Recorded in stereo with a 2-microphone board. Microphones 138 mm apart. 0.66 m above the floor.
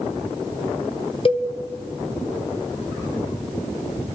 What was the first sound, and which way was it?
A cowbell, 40° left (ahead or behind).